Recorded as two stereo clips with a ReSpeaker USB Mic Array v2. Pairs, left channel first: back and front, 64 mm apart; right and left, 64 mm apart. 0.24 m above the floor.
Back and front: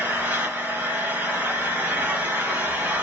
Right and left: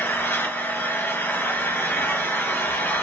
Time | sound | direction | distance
0.0 | an engine running | 55° right | 1.7 m